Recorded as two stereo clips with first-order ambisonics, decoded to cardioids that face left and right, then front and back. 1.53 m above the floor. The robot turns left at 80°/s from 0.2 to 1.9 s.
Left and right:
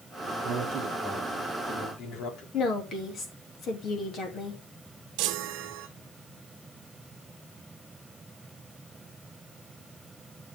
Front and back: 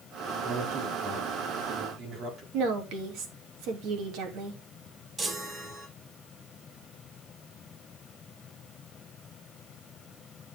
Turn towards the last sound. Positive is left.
turn(degrees=-105)